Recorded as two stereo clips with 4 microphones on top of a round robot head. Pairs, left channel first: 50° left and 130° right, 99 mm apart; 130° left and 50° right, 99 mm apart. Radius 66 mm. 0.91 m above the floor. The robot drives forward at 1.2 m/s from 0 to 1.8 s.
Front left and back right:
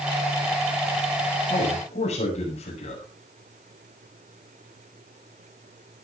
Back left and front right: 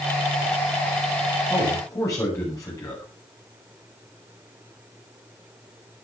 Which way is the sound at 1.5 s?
70° left.